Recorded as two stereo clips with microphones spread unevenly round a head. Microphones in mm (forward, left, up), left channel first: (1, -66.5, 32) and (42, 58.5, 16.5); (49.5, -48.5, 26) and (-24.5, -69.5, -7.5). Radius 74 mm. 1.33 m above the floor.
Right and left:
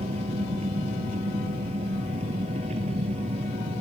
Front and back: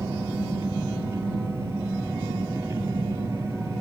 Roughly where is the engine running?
Behind left.